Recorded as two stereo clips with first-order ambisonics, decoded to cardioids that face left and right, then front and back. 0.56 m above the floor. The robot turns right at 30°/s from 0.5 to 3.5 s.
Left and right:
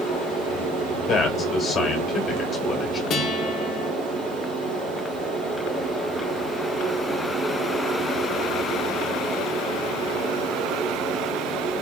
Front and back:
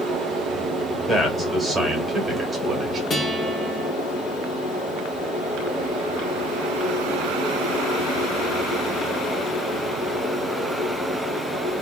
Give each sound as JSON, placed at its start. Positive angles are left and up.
{"t": 0.0, "sound": "running water", "azimuth_deg": -125, "distance_m": 3.0}
{"t": 1.1, "sound": "a man speaking", "azimuth_deg": 100, "distance_m": 1.3}
{"t": 3.1, "sound": "a guitar", "azimuth_deg": 45, "distance_m": 1.2}